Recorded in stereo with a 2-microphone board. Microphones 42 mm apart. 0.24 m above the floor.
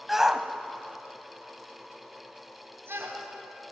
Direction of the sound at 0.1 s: 5° right (ahead or behind).